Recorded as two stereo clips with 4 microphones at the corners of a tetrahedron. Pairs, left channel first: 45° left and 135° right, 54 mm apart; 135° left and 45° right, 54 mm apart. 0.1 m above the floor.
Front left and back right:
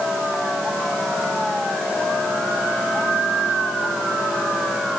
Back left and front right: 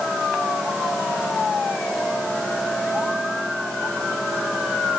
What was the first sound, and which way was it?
Only background noise.